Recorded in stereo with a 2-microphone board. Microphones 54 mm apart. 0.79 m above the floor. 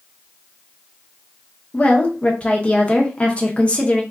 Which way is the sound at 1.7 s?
20° left (ahead or behind).